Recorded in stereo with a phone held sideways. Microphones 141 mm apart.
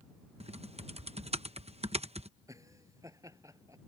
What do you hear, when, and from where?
0.4 s typing on a keyboard: 50° right (ahead or behind)
2.5 s laughter: 25° right (ahead or behind)